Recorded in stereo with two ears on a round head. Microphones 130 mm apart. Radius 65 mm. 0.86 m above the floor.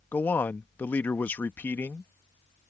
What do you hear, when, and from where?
0.1 s a man speaking: 10° left (ahead or behind)